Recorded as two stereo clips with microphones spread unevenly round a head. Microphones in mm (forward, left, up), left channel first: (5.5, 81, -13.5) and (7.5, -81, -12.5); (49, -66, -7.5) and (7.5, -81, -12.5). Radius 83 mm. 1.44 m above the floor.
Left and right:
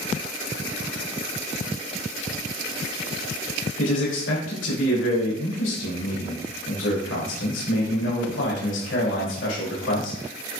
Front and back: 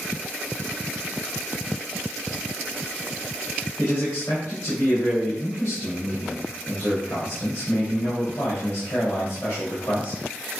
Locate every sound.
3.8 s a man speaking: 80° left, 3 m